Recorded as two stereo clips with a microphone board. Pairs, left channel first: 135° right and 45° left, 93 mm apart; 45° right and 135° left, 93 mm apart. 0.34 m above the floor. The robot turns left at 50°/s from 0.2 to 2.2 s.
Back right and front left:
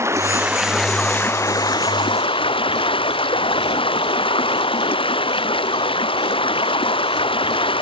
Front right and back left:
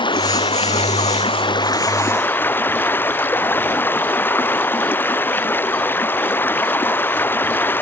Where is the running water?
15° right; by 7.8 s 115° right.